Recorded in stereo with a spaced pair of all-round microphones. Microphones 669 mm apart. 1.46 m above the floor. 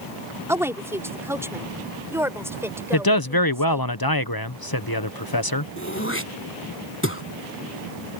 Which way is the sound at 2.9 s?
35° left (ahead or behind).